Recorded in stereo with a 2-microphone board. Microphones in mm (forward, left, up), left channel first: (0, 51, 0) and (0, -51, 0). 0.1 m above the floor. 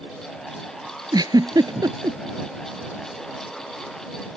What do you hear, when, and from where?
1.1 s a giggle: 40° right (ahead or behind)